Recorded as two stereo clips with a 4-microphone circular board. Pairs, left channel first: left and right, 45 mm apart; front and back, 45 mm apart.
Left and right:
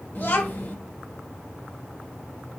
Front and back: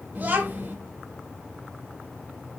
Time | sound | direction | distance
0.1 | a child speaking | 130° left | 1.1 m